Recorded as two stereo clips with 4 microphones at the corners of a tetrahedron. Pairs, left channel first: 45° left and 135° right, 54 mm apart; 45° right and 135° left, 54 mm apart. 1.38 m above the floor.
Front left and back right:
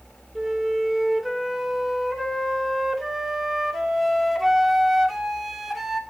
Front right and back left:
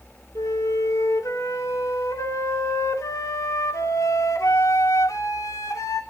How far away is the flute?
About 2.5 m.